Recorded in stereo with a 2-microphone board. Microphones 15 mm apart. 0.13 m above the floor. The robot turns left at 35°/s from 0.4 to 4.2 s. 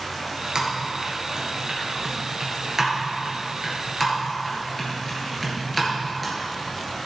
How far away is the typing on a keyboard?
About 2.5 m.